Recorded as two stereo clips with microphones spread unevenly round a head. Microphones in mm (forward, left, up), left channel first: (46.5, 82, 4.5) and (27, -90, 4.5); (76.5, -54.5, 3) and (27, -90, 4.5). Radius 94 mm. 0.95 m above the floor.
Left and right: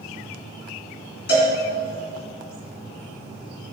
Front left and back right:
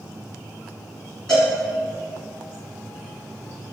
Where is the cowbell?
120° left, 2.5 m.